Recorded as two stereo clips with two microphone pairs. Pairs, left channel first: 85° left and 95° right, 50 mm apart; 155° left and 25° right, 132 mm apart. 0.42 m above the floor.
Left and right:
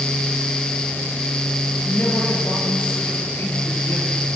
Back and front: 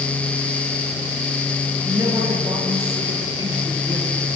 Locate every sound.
1.9 s a man speaking: 40° left, 8.5 m; by 4.1 s 35° left, 10 m